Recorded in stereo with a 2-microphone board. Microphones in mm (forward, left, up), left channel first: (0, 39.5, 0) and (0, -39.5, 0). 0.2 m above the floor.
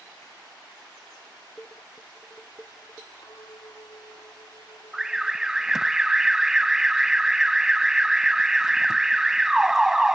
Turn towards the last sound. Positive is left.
turn(degrees=-5)  # may be behind; listen again after turning